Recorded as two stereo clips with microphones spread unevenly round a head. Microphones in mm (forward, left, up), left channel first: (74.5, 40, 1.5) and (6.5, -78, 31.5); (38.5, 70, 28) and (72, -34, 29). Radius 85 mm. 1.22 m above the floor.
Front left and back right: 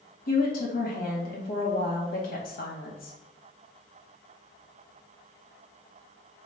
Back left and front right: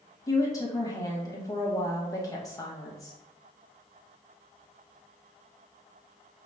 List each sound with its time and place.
0.3 s a woman speaking: 50° left, 1.5 m